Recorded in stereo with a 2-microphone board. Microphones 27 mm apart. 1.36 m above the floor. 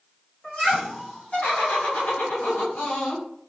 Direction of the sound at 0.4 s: 40° left (ahead or behind).